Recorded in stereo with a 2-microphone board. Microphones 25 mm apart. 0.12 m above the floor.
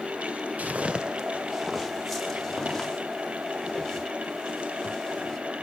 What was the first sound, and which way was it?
Footsteps, 85° right.